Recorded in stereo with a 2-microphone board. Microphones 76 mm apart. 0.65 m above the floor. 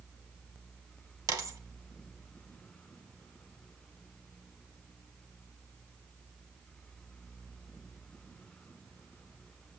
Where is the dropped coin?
55° right (ahead or behind), 1.4 m.